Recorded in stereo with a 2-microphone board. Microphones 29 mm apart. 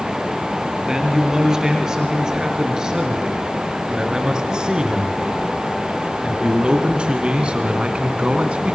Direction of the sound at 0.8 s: 20° right (ahead or behind).